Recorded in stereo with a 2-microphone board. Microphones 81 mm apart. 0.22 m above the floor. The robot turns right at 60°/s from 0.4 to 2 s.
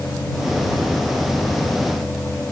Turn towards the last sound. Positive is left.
No sound to turn to.